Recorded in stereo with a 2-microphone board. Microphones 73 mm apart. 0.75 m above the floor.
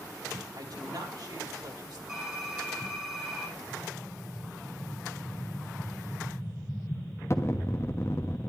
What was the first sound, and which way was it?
A woman speaking, 65° right (ahead or behind).